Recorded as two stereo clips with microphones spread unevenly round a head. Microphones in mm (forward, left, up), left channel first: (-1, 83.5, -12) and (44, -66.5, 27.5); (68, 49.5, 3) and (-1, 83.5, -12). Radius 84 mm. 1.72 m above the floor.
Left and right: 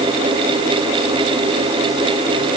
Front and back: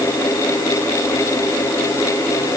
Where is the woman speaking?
I don't hear a woman speaking.